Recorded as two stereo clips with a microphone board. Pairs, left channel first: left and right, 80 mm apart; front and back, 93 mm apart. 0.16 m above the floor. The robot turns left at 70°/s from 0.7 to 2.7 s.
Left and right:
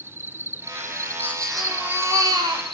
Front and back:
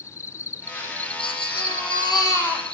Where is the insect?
45° right, 0.7 m; by 2.8 s 175° left, 0.7 m.